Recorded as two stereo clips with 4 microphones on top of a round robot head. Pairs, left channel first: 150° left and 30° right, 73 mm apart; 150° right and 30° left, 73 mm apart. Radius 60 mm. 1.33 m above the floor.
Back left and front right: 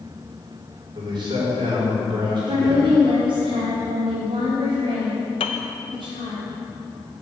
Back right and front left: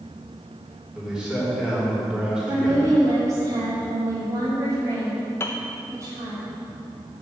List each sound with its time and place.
0.9 s a man speaking: 50° right, 4 m
2.5 s a woman speaking: 20° right, 3 m
5.4 s a piano: 155° left, 0.6 m